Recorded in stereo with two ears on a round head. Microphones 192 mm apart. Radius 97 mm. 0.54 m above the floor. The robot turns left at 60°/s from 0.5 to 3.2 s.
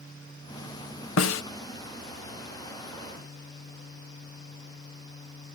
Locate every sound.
1.2 s a snare drum: 65° left (ahead or behind), 0.6 m